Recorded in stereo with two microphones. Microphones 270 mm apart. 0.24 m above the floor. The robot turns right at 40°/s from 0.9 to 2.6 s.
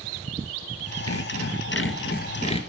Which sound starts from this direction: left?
Sawing, at 1.1 s.